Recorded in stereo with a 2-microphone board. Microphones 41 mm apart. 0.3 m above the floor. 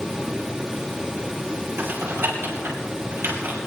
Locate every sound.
1.8 s typing on a keyboard: 75° right (ahead or behind), 4.5 m